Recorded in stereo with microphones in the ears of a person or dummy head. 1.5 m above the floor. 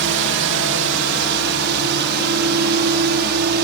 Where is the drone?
65° right (ahead or behind).